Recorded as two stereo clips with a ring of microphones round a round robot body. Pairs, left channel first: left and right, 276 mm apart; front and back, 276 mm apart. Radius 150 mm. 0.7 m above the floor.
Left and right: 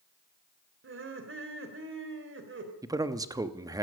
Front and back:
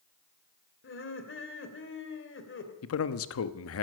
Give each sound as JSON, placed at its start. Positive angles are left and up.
{"t": 0.8, "sound": "laughter", "azimuth_deg": -45, "distance_m": 2.5}
{"t": 2.8, "sound": "a man speaking", "azimuth_deg": -15, "distance_m": 0.9}